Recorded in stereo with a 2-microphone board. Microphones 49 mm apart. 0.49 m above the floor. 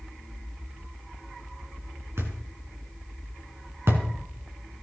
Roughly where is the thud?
Right.